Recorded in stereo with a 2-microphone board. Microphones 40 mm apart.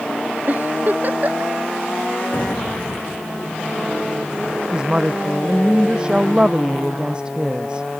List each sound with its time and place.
0.5 s a giggle: 45° right (ahead or behind)
2.3 s an explosion: 45° left (ahead or behind)
4.7 s a woman speaking: 20° right (ahead or behind)